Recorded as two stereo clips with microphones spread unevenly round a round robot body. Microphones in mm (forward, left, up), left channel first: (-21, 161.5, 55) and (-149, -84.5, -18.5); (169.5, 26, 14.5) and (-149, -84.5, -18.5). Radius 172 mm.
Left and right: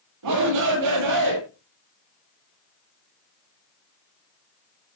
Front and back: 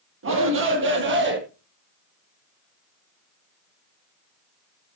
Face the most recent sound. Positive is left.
turn(degrees=-105)